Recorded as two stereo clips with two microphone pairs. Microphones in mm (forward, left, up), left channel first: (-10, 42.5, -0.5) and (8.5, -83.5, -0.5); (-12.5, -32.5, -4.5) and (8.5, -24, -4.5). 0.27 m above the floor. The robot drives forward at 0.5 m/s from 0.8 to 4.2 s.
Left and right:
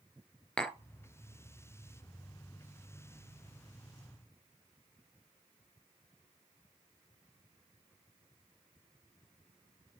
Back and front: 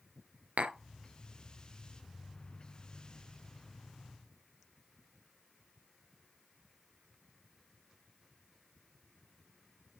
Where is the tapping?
15° left, 0.6 m.